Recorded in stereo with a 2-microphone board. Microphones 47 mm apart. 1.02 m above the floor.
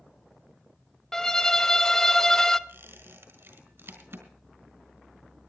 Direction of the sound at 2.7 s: 65° right (ahead or behind).